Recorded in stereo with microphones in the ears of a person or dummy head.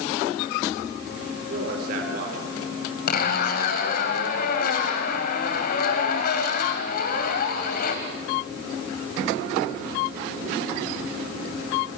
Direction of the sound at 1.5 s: 55° right (ahead or behind).